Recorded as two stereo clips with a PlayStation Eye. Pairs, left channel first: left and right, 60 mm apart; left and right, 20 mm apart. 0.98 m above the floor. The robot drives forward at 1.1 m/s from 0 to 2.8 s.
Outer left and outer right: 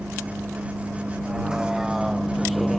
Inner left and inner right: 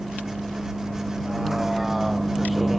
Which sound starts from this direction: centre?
A vehicle, at 0.0 s.